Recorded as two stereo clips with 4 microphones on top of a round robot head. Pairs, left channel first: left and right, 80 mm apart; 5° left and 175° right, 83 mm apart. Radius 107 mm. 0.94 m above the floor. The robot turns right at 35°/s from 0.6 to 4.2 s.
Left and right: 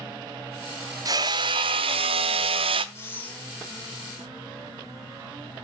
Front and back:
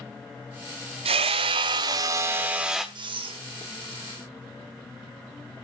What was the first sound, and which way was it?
Hammering, 150° right.